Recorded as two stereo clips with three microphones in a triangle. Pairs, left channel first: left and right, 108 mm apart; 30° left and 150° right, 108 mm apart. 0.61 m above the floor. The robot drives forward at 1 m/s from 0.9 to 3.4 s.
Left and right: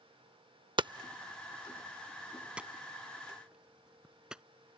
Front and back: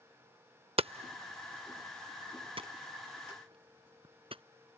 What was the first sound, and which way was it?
Hammering, 130° right.